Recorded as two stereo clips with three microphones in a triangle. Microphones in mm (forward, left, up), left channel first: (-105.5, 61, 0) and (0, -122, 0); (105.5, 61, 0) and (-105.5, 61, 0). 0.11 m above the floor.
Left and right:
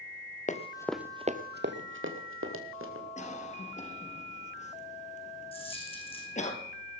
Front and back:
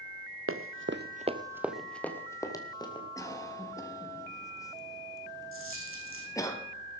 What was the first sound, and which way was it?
Running footsteps, 175° left.